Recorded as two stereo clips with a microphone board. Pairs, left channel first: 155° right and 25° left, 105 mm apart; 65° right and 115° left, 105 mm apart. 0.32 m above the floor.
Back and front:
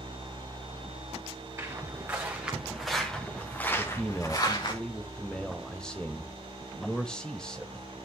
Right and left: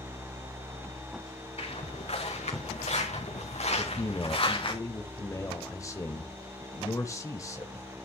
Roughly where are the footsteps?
Ahead right.